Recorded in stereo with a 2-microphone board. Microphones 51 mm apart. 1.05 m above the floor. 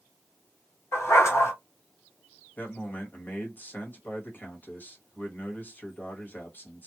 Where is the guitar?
No guitar in this recording.